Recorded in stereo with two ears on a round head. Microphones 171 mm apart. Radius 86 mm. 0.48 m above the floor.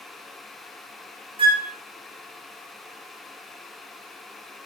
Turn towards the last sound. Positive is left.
turn(degrees=-30)  # may be behind; listen again after turning